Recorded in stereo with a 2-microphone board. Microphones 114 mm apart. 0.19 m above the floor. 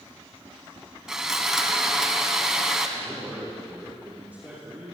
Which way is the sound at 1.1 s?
5° right (ahead or behind).